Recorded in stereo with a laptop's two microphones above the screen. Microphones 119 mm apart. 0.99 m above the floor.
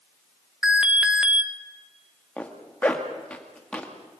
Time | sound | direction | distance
0.6 | an alarm | 10° right (ahead or behind) | 1.2 m
2.4 | a zipper | 10° left (ahead or behind) | 1.7 m